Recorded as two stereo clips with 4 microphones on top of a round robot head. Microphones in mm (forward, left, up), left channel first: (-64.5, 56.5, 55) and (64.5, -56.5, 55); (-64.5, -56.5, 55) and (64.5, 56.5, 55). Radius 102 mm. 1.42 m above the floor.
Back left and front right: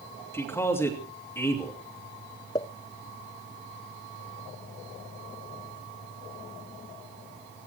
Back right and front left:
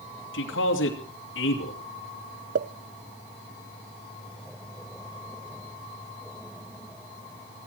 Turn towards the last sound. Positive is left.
turn(degrees=70)